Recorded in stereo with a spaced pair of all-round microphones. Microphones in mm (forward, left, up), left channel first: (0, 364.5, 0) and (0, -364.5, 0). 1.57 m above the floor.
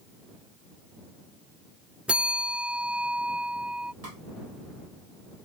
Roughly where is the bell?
Centre.